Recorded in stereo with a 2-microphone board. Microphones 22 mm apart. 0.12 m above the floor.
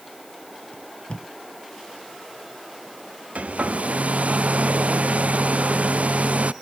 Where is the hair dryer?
75° right (ahead or behind).